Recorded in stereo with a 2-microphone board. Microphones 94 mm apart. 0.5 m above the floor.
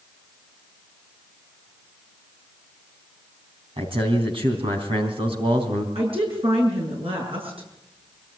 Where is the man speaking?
70° right (ahead or behind), 3.5 m.